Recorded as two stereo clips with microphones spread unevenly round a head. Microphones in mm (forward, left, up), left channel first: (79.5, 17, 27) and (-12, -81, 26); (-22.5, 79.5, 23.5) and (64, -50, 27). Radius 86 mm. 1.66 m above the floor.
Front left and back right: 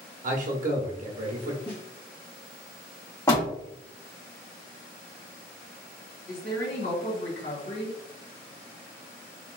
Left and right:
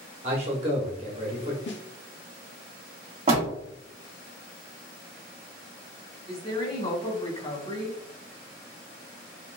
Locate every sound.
0.2 s a man speaking: 115° right, 1.0 m
1.7 s a snare drum: 120° left, 0.5 m
3.3 s a door slam: 15° right, 1.3 m
6.3 s a woman speaking: 70° left, 1.9 m